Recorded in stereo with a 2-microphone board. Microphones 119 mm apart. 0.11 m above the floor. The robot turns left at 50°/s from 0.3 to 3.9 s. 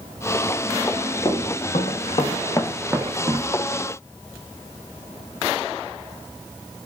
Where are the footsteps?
35° left (ahead or behind), 0.9 m; by 3.6 s 65° right (ahead or behind), 0.7 m.